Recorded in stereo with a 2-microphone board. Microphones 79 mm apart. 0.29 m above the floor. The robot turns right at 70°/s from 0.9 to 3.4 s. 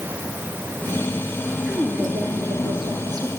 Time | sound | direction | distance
1.6 | a woman speaking | 165° right | 4.5 m